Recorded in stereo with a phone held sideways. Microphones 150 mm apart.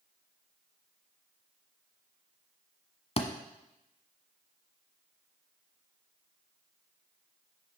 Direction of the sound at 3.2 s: 40° left (ahead or behind).